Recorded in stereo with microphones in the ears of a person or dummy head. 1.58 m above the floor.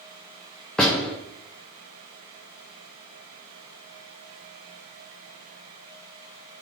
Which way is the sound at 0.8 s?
5° left (ahead or behind).